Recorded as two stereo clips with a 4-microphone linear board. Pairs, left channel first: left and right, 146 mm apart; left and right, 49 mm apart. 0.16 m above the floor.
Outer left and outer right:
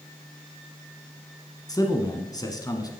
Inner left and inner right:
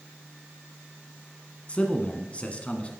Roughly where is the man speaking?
Left.